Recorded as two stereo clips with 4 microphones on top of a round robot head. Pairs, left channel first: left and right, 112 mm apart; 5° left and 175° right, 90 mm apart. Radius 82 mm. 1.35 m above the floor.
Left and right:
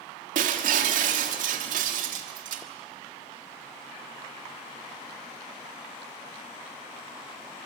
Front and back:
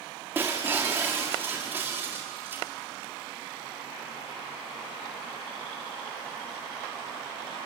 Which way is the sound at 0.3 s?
100° right.